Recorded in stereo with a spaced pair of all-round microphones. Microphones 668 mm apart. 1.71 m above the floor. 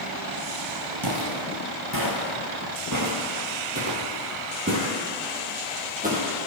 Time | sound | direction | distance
1.0 | footsteps | 35° right (ahead or behind) | 2 m